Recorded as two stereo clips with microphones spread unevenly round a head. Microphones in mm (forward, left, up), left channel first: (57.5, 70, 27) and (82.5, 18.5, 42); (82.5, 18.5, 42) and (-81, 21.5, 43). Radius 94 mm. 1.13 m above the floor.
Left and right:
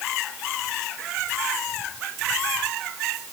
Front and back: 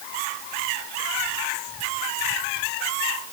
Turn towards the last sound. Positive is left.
No sound to turn to.